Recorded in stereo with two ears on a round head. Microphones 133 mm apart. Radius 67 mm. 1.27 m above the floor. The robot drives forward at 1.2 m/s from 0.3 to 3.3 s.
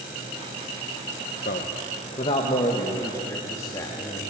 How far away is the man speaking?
About 1.3 m.